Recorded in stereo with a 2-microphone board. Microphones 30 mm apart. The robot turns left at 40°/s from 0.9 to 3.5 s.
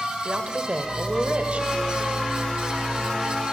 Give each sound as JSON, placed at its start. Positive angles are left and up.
{"t": 0.2, "sound": "a woman speaking", "azimuth_deg": -70, "distance_m": 1.4}